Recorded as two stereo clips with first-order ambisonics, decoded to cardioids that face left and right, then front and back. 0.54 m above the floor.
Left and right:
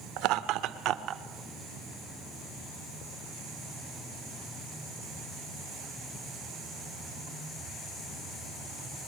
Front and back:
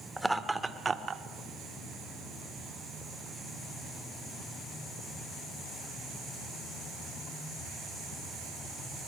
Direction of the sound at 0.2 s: 95° right.